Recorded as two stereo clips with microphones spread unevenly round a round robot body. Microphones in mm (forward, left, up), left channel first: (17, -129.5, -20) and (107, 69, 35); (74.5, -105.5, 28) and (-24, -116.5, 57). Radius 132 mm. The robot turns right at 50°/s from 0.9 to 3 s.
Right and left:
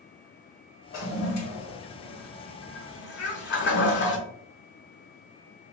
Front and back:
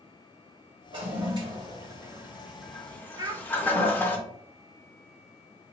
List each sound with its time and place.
0.9 s a toilet flushing: 175° right, 0.9 m; by 4.2 s 75° right, 0.9 m
3.2 s a child speaking: 120° right, 1.0 m